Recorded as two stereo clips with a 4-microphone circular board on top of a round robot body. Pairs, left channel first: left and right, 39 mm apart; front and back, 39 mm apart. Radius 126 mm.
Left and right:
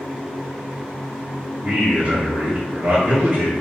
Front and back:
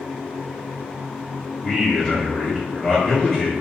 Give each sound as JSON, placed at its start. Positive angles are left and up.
{"t": 1.6, "sound": "a man speaking", "azimuth_deg": -65, "distance_m": 1.6}